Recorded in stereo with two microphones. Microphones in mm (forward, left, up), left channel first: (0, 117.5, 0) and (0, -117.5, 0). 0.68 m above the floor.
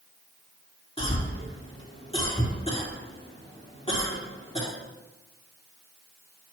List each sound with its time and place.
1.0 s a cough: 25° left (ahead or behind), 1.8 m